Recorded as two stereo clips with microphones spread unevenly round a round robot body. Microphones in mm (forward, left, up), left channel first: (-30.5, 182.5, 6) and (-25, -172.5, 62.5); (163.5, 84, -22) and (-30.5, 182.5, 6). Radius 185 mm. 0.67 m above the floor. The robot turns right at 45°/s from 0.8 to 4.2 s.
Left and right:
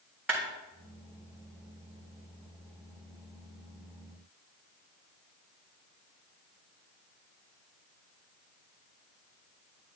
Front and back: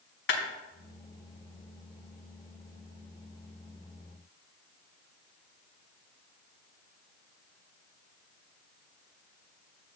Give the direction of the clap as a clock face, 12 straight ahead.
12 o'clock.